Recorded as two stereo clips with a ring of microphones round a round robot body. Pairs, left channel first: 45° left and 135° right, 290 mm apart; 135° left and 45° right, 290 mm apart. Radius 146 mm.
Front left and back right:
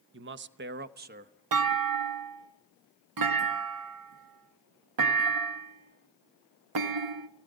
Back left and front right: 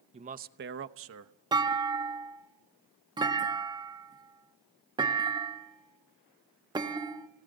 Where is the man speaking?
105° right, 0.7 m; by 1.3 s 75° right, 1.1 m.